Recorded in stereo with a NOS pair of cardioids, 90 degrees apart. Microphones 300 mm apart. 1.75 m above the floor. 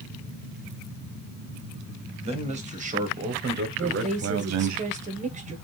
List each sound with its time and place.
2.2 s a man speaking: 20° right, 2.0 m; by 4.8 s 70° right, 0.8 m
3.8 s a woman speaking: 25° right, 1.4 m